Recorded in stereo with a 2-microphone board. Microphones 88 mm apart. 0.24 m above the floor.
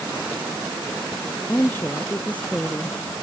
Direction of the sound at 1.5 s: 20° left (ahead or behind).